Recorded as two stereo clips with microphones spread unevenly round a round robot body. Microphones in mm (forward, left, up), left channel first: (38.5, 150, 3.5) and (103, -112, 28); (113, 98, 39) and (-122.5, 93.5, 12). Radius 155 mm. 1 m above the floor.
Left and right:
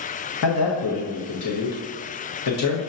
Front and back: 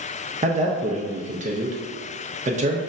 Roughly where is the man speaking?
Behind left.